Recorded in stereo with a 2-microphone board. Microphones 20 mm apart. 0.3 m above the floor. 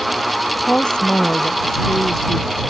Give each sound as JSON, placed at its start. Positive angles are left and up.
{"t": 0.6, "sound": "a woman speaking", "side_deg": 55}